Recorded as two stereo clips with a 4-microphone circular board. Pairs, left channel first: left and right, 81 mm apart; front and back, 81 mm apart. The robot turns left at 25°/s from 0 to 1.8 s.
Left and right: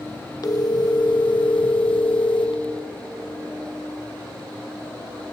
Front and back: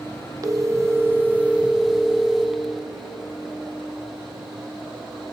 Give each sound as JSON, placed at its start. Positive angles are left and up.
{"t": 0.4, "sound": "a phone ringing", "azimuth_deg": 130, "distance_m": 0.5}